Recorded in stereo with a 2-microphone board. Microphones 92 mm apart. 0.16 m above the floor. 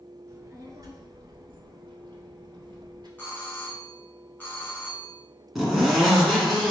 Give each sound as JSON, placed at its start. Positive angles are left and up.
{"t": 0.3, "sound": "a child speaking", "side_deg": -30, "distance_m": 1.3}
{"t": 3.2, "sound": "a doorbell", "side_deg": 20, "distance_m": 1.8}
{"t": 5.5, "sound": "a zipper", "side_deg": 0, "distance_m": 1.7}